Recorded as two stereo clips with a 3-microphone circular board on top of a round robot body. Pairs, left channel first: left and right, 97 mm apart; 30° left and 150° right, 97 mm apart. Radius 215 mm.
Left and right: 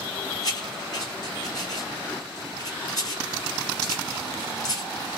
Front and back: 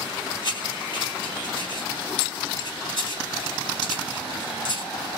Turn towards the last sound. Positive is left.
turn(degrees=55)